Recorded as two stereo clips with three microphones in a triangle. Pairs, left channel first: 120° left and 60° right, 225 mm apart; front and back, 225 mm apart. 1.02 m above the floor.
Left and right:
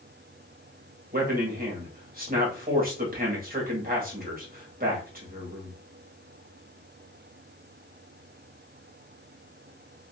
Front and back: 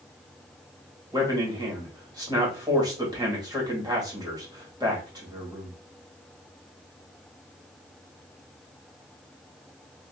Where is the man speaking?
110° right, 1.3 m.